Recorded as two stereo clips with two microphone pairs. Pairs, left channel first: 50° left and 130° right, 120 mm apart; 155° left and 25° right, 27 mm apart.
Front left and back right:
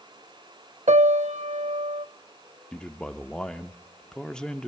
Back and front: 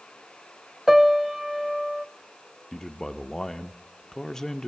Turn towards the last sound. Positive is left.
turn(degrees=125)